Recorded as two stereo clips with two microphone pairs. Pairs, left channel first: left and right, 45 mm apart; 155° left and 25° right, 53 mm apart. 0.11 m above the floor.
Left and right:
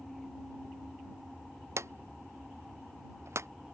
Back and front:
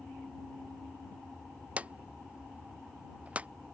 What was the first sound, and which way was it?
A drawer, 95° right.